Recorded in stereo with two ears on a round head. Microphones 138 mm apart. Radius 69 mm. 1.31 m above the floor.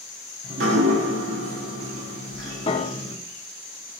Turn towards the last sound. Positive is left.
turn(degrees=35)  # may be behind; listen again after turning